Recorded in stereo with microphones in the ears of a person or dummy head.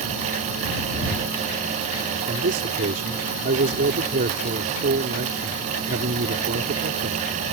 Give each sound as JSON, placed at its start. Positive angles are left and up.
{"t": 2.3, "sound": "a man speaking", "side_deg": -50}